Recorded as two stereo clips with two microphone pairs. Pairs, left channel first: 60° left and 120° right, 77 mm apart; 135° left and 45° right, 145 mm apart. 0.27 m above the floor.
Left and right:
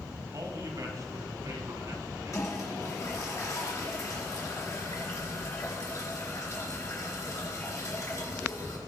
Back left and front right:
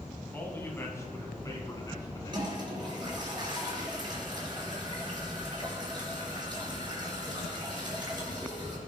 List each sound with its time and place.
0.3 s a man speaking: 150° right, 2.5 m; by 3.3 s 165° right, 3.5 m
2.3 s a toilet flushing: 15° left, 3.5 m